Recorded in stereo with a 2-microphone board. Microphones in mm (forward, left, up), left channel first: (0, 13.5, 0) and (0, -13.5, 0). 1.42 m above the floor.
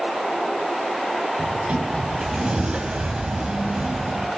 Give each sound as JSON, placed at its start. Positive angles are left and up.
{"t": 1.4, "sound": "a sliding door", "side_deg": -45, "distance_m": 1.7}